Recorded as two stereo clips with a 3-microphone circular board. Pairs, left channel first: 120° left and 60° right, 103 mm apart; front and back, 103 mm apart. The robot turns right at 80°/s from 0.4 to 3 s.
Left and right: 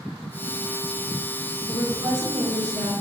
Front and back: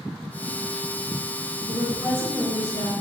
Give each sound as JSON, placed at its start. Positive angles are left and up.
{"t": 1.7, "sound": "a woman speaking", "azimuth_deg": -145, "distance_m": 2.0}